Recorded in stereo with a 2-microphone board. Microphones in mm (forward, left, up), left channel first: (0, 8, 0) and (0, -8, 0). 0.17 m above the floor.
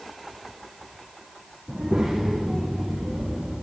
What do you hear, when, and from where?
1.7 s a child speaking: 75° right (ahead or behind), 6 m; by 3.5 s 60° right (ahead or behind), 8 m